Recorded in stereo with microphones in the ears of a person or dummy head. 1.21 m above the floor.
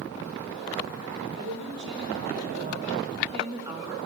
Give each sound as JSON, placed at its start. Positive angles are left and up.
{"t": 1.3, "sound": "a woman speaking", "side_deg": -60, "distance_m": 3.5}